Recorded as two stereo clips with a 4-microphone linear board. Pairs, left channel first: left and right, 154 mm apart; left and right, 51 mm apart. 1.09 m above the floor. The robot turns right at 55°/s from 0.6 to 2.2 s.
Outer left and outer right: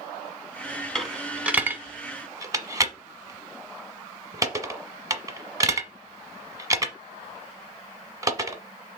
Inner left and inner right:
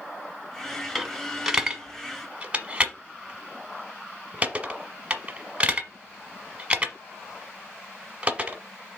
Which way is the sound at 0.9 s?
5° left (ahead or behind).